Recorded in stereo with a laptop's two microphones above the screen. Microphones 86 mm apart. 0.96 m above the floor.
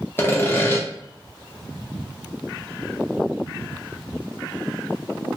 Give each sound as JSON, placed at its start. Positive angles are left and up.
{"t": 0.2, "sound": "sawing", "side_deg": 25, "distance_m": 0.5}